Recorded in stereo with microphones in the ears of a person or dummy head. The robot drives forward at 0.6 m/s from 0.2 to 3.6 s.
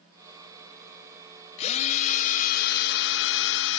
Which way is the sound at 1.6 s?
40° left (ahead or behind).